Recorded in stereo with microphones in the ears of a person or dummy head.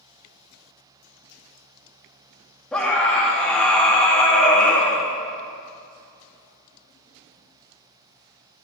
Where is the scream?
5° left (ahead or behind), 2 m.